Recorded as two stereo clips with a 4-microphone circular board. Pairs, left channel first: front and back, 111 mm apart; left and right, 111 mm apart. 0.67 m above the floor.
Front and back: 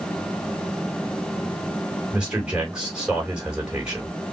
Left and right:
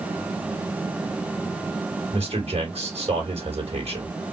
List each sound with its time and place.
2.1 s a man speaking: 100° right, 3 m